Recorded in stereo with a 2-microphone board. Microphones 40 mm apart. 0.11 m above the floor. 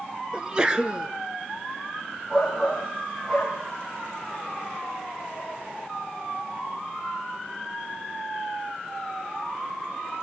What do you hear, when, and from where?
0.3 s a sneeze: 20° right (ahead or behind), 1.2 m
2.3 s a shout: 10° right (ahead or behind), 4 m